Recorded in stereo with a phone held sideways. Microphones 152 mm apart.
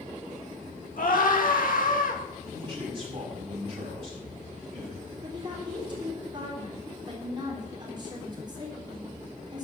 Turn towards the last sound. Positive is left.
turn(degrees=-30)  # may be behind; listen again after turning